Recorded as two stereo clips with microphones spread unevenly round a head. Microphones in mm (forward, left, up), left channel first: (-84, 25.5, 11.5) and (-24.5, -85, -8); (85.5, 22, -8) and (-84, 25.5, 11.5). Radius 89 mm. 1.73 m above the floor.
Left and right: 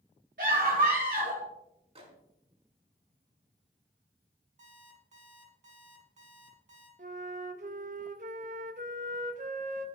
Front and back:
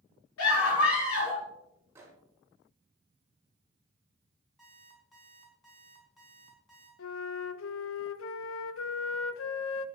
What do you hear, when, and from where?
0.4 s a scream: 15° right, 5 m
1.9 s a microwave: 105° right, 4 m
4.6 s an alarm clock: 90° right, 5.5 m
7.0 s a flute: 15° right, 0.5 m